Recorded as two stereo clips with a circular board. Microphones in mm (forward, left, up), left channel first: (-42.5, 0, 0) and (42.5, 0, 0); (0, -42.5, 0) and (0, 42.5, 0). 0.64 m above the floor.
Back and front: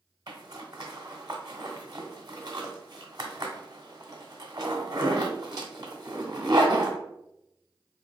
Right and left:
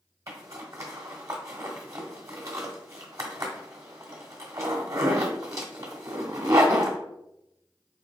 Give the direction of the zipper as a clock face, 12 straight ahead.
11 o'clock.